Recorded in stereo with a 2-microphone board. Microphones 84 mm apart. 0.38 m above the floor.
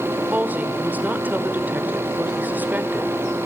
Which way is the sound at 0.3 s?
20° right (ahead or behind).